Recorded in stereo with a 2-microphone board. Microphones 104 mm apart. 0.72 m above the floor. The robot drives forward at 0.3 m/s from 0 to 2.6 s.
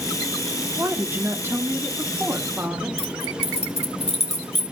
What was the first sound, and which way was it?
A woman speaking, 25° right (ahead or behind).